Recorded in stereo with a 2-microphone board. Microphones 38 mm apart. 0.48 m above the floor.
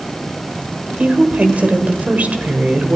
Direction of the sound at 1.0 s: 45° right (ahead or behind).